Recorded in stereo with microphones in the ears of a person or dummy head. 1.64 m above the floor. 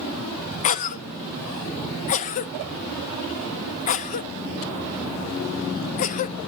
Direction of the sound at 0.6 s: 40° left (ahead or behind).